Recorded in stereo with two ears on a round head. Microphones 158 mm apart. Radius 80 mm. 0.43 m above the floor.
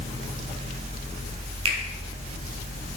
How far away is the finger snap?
About 1.6 m.